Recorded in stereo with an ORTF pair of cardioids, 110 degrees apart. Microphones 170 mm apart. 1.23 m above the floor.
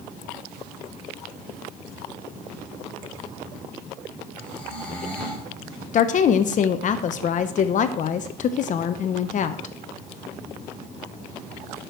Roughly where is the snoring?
Ahead.